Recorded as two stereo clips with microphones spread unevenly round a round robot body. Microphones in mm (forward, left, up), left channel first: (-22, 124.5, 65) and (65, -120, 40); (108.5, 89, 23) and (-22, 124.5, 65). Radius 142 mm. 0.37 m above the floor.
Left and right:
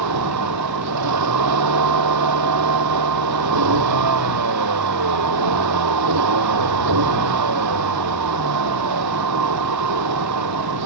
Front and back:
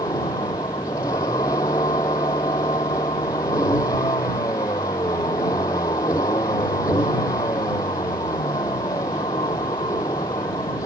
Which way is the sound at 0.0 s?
90° right.